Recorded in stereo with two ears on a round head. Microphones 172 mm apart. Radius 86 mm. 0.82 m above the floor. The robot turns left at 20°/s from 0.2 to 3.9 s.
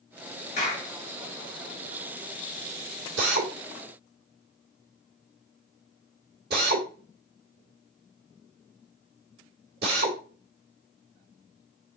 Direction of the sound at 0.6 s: 35° left (ahead or behind).